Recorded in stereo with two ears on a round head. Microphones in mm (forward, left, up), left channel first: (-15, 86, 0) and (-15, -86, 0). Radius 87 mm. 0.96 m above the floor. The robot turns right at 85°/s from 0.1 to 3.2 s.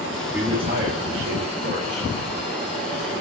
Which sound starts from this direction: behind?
A man speaking, at 0.3 s.